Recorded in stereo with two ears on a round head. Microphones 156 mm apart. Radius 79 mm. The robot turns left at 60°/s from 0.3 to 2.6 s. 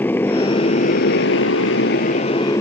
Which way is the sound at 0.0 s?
10° left (ahead or behind).